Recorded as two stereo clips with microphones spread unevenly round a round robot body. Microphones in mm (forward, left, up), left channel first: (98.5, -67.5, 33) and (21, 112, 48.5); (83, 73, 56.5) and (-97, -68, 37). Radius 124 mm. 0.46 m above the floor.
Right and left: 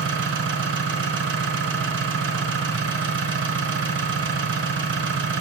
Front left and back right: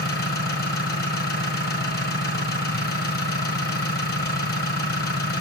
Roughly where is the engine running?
Left.